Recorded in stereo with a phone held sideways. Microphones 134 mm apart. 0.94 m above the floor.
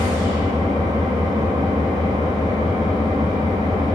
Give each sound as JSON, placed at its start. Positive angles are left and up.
{"t": 0.0, "sound": "an engine running", "side_deg": -30, "distance_m": 1.3}